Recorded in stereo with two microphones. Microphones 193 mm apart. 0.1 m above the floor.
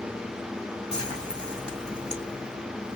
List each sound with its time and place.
0.9 s frying: 5° left (ahead or behind), 3 m